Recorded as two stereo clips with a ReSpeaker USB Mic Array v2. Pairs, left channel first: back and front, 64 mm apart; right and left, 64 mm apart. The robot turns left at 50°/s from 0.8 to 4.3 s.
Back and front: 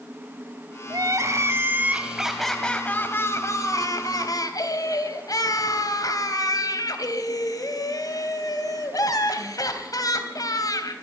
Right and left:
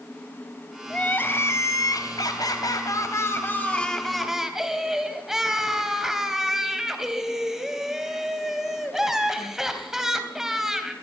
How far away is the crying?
About 3 m.